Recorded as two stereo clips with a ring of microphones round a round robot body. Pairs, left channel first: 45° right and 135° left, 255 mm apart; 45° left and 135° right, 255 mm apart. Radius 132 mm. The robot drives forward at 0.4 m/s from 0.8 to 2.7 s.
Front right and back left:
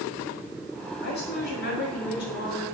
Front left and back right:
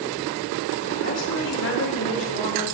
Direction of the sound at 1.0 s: 5° left.